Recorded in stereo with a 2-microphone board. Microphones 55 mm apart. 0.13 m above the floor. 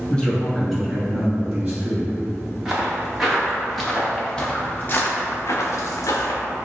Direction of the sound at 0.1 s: 15° left (ahead or behind).